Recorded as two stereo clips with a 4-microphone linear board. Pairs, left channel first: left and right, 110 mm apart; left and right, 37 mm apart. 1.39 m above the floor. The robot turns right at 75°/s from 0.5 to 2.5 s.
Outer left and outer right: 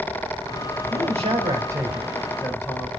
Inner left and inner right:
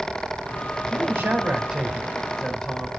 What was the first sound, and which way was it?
A man speaking, 90° right.